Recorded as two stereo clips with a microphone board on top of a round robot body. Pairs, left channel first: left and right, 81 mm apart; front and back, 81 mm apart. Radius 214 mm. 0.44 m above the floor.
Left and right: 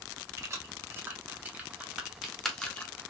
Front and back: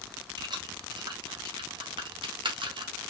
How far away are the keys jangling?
About 2 m.